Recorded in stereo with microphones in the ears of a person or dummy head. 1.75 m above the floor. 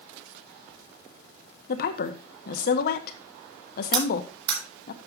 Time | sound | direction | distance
1.7 | a woman speaking | 60° left (ahead or behind) | 1.2 m
3.9 | cutlery clinking | 25° right (ahead or behind) | 3.5 m